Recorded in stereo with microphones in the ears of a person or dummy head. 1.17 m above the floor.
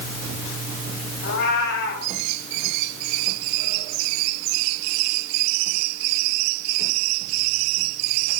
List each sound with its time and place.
1.2 s a cat meowing: 60° left (ahead or behind), 4 m